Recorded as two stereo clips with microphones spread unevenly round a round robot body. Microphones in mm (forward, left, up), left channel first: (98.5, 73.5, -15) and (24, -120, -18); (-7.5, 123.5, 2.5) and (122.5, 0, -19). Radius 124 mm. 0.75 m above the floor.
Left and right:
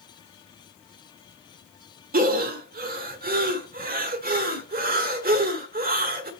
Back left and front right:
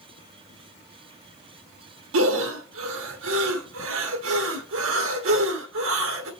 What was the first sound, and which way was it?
Breathing, 65° right.